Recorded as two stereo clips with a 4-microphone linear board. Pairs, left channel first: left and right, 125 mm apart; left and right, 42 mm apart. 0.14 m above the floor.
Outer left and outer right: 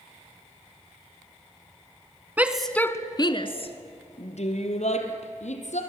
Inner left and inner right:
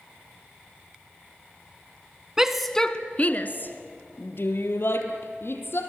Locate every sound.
2.4 s a shout: 15° right (ahead or behind), 1.1 m; by 5.8 s 65° left (ahead or behind), 4 m